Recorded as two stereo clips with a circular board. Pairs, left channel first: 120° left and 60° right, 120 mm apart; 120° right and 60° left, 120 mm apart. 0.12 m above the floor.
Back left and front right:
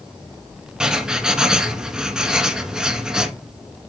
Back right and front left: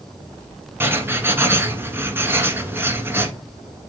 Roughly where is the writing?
Ahead.